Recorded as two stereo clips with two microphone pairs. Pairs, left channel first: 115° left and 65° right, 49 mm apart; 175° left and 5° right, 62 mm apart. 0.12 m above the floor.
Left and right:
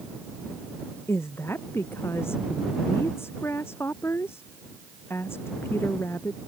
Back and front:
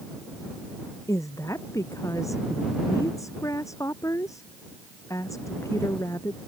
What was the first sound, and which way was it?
A woman speaking, 145° left.